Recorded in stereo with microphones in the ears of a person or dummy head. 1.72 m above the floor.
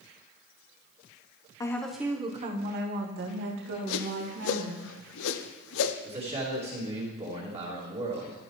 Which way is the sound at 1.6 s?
15° left (ahead or behind).